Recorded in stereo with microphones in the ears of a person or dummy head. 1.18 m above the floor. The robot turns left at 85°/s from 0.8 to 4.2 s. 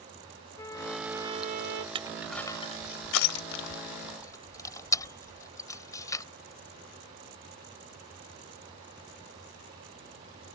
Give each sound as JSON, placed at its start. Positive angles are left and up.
{"t": 0.6, "sound": "a trumpet", "azimuth_deg": 15}
{"t": 1.9, "sound": "crushing", "side_deg": -30}